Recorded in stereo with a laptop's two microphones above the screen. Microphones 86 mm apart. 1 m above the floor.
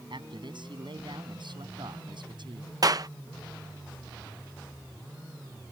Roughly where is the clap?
Right.